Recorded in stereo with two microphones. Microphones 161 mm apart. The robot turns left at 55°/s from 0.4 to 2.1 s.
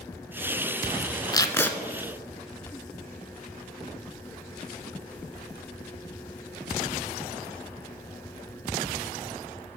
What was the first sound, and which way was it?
Tape being pulled, 25° left (ahead or behind).